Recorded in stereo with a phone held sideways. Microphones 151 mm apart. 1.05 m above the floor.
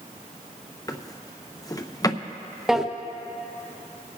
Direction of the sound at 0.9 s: 25° left (ahead or behind).